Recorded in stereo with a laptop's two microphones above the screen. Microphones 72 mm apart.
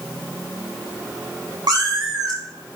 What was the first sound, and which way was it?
A cat meowing, 70° right (ahead or behind).